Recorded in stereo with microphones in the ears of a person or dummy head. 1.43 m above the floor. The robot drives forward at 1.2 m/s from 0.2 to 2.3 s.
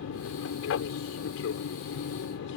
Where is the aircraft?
70° left (ahead or behind); by 2.6 s 65° left (ahead or behind).